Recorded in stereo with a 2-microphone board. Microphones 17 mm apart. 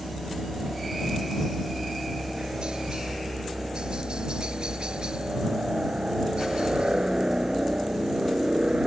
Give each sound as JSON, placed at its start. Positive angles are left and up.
{"t": 0.0, "sound": "a helicopter", "side_deg": -60}